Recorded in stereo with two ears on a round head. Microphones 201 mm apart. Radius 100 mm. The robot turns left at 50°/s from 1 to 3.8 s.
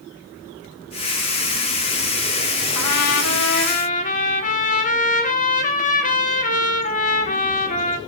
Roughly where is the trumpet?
Left.